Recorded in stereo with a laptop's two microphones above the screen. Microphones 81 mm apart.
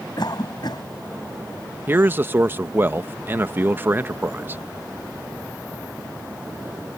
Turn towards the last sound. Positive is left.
turn(degrees=-30)  # may be behind; listen again after turning